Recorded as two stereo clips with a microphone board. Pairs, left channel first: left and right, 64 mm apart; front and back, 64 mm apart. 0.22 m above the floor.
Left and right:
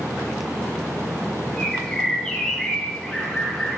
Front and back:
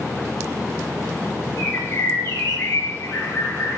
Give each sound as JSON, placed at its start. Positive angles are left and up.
{"t": 1.6, "sound": "a bird", "azimuth_deg": 15, "distance_m": 1.4}